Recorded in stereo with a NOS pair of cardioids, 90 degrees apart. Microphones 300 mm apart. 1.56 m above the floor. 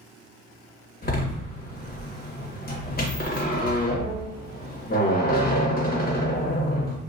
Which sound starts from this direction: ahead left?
A door slam, at 1.0 s.